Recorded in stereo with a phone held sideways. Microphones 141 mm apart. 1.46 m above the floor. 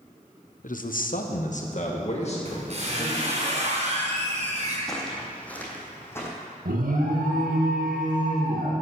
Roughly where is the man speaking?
Left.